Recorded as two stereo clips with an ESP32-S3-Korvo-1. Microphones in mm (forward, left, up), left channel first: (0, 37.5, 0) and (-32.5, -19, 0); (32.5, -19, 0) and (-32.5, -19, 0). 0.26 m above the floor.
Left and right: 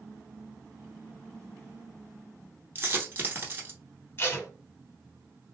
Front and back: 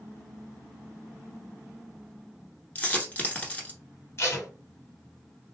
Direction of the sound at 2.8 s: 65° right.